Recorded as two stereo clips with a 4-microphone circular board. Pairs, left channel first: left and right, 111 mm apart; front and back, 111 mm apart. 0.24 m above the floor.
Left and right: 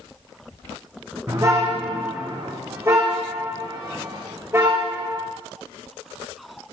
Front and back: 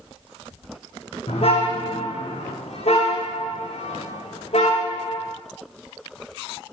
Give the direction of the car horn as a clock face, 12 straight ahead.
1 o'clock.